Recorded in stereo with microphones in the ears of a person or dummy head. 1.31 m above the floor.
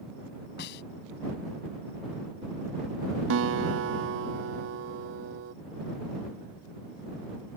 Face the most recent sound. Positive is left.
turn(degrees=-70)  # may be behind; listen again after turning